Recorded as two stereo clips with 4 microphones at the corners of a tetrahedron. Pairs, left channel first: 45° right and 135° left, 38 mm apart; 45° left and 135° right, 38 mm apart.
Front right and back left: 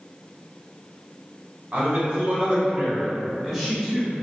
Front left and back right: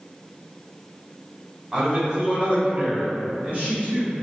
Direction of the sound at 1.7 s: 165° left.